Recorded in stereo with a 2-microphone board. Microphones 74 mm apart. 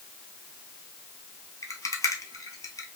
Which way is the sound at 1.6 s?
45° left (ahead or behind).